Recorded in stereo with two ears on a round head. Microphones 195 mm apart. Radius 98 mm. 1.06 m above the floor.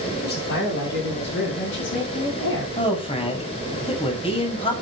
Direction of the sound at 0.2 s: 50° left (ahead or behind).